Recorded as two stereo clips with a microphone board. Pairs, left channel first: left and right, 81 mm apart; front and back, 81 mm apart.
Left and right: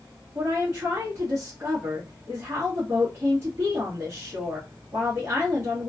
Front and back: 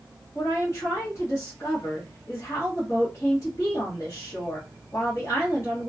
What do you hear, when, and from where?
0.3 s a woman speaking: 45° right, 1.4 m